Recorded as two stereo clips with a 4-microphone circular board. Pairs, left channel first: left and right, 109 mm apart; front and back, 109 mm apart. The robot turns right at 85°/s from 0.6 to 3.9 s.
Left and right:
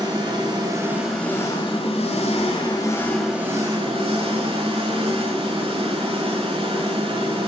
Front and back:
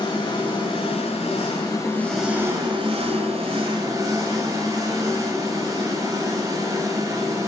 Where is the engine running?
45° right, 3 m; by 7.5 s 125° right, 3 m.